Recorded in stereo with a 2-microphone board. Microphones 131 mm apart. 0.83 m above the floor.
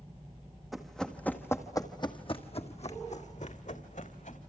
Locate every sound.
0.7 s running footsteps: centre (ahead or behind), 2 m; by 4.4 s 75° left (ahead or behind), 3 m